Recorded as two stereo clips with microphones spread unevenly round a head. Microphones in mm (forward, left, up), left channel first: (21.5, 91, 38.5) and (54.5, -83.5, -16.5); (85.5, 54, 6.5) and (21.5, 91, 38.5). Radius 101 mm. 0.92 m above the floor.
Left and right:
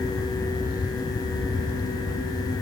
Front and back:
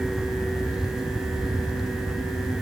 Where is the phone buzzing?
No phone buzzing in this recording.